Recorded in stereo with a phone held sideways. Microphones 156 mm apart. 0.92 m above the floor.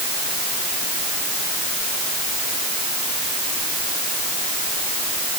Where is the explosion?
No explosion in this recording.